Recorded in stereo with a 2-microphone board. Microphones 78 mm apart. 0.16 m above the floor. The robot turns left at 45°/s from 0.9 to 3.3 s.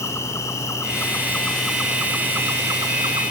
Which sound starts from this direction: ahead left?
An insect, at 0.0 s.